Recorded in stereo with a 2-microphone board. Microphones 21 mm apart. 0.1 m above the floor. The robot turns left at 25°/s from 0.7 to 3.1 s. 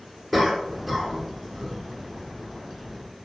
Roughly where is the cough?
Centre.